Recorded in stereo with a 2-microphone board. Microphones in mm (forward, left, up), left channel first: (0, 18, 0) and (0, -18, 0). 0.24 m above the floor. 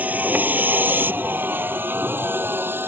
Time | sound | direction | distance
0.0 | a vehicle | 50° right (ahead or behind) | ?